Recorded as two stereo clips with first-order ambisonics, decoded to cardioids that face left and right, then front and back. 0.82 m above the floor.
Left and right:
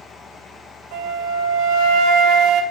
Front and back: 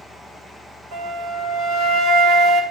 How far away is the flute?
About 2 m.